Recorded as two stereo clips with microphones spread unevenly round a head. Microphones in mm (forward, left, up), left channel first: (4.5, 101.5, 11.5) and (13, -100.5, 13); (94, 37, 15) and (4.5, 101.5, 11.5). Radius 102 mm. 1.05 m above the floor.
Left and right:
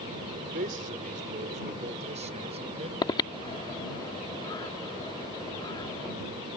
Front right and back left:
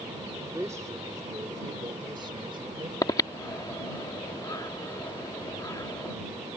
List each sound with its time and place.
0.3 s a man speaking: 135° right; by 2.9 s 150° right
3.0 s breathing: 20° left